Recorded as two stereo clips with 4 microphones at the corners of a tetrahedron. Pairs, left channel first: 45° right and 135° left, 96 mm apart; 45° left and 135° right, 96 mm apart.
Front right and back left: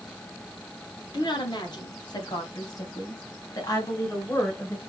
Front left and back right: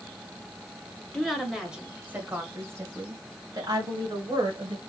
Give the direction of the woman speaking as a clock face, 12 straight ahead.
1 o'clock.